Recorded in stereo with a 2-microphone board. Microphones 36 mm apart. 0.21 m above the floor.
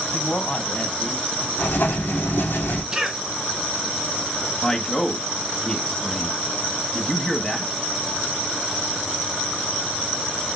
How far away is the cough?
About 2.5 m.